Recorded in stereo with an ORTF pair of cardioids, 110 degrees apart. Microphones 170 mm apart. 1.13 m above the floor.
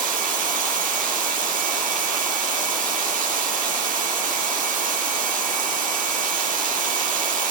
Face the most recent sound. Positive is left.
turn(degrees=-55)